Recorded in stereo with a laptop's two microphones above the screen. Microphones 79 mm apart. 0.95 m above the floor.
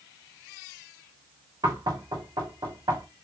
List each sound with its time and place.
1.6 s knocking: 70° right (ahead or behind), 1.7 m